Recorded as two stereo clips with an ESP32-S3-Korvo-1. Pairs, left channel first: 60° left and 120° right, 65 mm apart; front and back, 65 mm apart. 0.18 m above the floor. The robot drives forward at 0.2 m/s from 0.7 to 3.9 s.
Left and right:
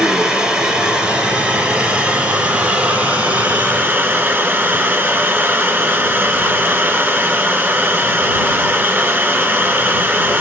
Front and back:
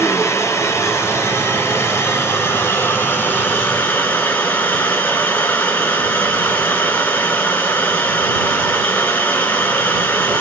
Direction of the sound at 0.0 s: 45° right.